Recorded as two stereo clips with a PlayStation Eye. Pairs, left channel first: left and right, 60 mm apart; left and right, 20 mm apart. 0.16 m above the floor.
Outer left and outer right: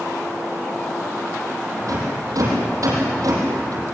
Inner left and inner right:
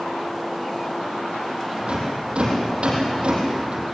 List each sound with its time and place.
1.8 s a rattle: 70° right (ahead or behind), 6.5 m